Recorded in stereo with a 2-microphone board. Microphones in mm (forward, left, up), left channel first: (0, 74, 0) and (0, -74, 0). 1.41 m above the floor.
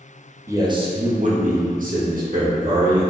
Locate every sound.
0.5 s a man speaking: 20° right (ahead or behind), 0.5 m; by 3.0 s 70° right (ahead or behind), 1.6 m